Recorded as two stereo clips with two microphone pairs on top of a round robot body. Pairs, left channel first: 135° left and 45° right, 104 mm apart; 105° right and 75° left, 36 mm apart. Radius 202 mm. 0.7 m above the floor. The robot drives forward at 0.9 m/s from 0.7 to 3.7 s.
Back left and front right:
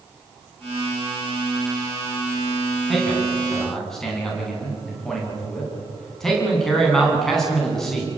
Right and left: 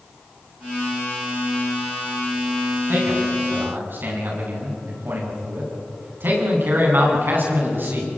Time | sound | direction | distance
2.9 | a man speaking | 45° left | 8.5 m